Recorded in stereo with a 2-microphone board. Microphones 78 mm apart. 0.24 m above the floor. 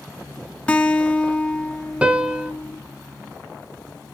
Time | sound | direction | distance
0.7 | a guitar | 15° left (ahead or behind) | 1.1 m
2.0 | a piano | 15° right (ahead or behind) | 0.9 m